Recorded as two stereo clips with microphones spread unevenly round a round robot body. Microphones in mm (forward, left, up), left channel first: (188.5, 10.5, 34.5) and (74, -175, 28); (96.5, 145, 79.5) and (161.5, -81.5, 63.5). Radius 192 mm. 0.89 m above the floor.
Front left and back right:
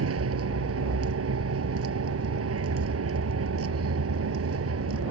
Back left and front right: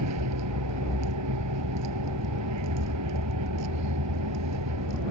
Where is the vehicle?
105° right.